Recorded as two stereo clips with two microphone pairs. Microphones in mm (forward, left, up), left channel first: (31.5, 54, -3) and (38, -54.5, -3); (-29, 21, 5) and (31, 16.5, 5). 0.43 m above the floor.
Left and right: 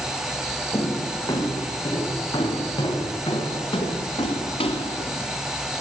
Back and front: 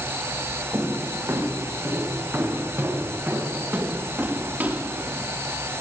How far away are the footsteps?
About 9 m.